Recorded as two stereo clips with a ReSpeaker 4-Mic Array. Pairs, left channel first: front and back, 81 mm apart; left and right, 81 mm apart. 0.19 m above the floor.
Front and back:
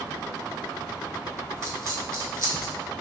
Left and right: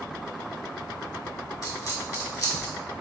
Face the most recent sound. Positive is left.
turn(degrees=130)